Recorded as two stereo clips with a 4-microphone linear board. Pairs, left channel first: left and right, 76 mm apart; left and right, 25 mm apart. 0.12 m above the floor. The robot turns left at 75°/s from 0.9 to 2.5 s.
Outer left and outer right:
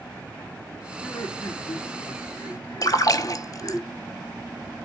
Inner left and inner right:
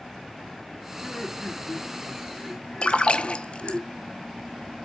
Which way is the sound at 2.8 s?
50° left (ahead or behind).